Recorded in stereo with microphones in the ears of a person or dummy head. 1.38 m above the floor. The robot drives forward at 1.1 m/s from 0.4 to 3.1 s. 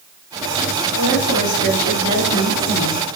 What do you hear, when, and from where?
0.9 s a woman speaking: 85° left, 4 m; by 3.0 s 65° left (ahead or behind), 4.5 m